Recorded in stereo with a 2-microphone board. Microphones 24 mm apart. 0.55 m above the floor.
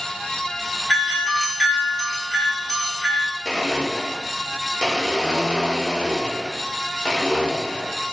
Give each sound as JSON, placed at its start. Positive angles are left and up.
{"t": 0.9, "sound": "a doorbell", "side_deg": 10, "distance_m": 2.5}
{"t": 3.5, "sound": "a blender", "side_deg": 30, "distance_m": 0.9}